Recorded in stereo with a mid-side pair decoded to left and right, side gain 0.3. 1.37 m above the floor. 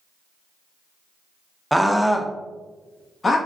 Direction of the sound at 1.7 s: 5° right.